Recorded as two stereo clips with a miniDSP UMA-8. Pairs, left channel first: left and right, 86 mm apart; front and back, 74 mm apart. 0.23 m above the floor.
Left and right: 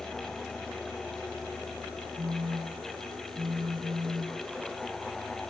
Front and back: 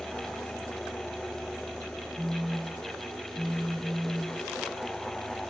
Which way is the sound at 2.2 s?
100° right.